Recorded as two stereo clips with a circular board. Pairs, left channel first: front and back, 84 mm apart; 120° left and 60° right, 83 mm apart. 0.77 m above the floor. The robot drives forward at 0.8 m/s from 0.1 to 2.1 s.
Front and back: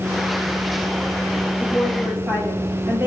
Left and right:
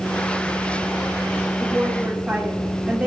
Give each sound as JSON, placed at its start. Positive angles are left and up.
{"t": 1.6, "sound": "a woman speaking", "azimuth_deg": -105, "distance_m": 1.4}